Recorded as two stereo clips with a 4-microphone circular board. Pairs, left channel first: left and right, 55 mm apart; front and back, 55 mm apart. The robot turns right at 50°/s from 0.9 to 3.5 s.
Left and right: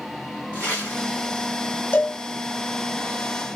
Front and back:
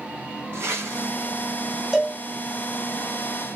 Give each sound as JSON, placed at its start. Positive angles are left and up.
{"t": 0.5, "sound": "a whoosh", "azimuth_deg": 145, "distance_m": 1.9}
{"t": 1.9, "sound": "a cowbell", "azimuth_deg": 100, "distance_m": 1.3}